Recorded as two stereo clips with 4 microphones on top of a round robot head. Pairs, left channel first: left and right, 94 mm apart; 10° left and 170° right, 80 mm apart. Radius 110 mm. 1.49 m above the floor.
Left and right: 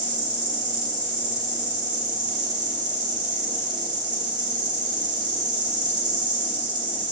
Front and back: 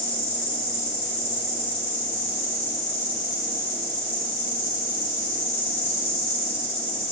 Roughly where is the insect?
Ahead right.